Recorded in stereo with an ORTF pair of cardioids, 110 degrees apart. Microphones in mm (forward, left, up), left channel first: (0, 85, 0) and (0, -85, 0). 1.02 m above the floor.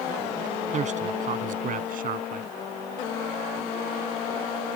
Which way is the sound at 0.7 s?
45° right.